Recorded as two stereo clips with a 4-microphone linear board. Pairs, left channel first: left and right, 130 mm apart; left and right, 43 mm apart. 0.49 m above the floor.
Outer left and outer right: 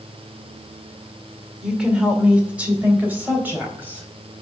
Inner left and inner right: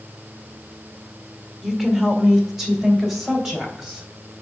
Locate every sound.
1.6 s a woman speaking: 5° right (ahead or behind), 1.7 m; by 4.1 s 15° right (ahead or behind), 3.5 m